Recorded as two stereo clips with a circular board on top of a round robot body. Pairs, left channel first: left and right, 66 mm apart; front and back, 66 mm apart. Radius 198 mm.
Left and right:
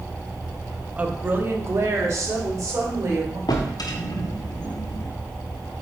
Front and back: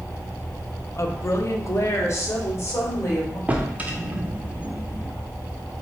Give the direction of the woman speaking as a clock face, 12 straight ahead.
1 o'clock.